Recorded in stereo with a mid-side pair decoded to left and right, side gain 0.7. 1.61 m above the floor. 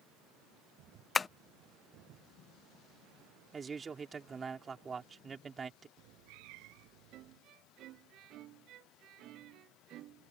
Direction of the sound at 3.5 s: 25° right.